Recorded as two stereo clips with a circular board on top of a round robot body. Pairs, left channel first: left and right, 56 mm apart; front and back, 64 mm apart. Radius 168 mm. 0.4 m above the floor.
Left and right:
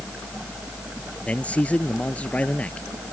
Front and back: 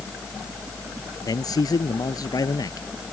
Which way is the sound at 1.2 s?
20° left.